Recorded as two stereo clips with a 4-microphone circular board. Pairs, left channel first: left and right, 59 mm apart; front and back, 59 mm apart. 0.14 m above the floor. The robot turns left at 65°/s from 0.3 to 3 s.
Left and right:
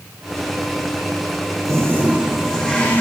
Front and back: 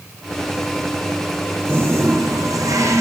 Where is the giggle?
No giggle in this recording.